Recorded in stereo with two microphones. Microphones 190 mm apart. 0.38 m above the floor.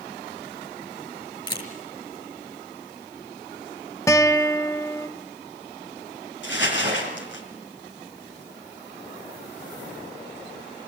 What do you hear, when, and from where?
1.5 s a camera shutter: 25° left (ahead or behind), 5.5 m
4.1 s a guitar: 15° left (ahead or behind), 0.7 m
6.4 s crumpling: 70° left (ahead or behind), 5 m